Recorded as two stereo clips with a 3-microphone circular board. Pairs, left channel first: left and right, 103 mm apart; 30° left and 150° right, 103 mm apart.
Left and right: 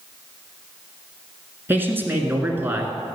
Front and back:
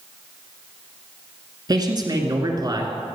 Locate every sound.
1.7 s a man speaking: 150° right, 1.4 m